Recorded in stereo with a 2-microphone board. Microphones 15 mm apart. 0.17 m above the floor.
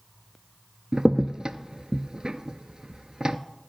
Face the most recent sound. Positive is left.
turn(degrees=-60)  # may be behind; listen again after turning